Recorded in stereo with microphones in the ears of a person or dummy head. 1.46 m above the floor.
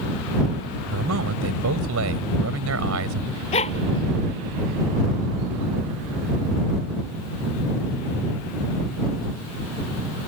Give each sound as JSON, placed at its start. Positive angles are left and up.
{"t": 0.9, "sound": "a man speaking", "side_deg": -75}
{"t": 3.5, "sound": "a dog barking", "side_deg": 35}